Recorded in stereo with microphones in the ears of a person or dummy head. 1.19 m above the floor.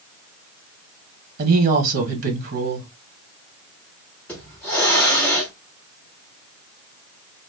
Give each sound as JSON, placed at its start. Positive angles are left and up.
{"t": 1.4, "sound": "a woman speaking", "side_deg": -50, "distance_m": 1.1}
{"t": 4.3, "sound": "a hiss", "side_deg": 5, "distance_m": 0.9}